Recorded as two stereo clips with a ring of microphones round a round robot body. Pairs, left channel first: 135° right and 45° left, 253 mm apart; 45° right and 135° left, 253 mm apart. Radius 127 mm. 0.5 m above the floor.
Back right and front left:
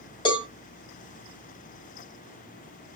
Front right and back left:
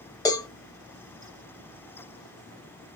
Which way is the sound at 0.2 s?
95° right.